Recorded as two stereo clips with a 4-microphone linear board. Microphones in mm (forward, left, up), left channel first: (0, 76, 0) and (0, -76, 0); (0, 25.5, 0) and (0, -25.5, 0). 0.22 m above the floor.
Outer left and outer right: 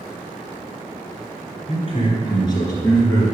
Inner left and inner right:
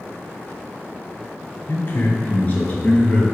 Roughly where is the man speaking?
Left.